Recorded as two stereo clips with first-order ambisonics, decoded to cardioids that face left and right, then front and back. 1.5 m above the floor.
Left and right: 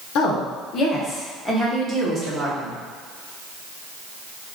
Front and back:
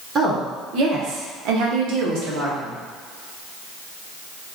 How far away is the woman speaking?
About 0.7 m.